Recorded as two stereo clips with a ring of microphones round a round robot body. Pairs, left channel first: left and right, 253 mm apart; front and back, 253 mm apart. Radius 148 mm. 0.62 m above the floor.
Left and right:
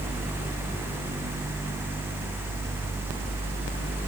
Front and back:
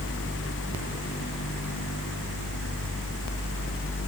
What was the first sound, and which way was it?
Only background noise.